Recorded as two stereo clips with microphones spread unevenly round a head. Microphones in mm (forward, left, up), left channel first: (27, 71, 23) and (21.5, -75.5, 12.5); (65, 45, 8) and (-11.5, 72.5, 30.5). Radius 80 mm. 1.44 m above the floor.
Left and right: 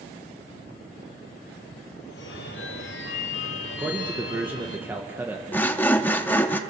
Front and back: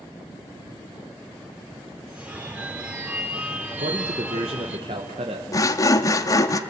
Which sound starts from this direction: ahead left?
Sawing, at 5.5 s.